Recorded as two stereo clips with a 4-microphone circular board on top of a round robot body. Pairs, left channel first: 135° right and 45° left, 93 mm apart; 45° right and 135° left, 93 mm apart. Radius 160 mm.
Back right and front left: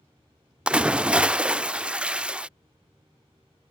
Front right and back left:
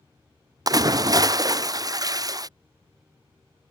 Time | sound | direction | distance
0.7 | a splash | 115° left | ?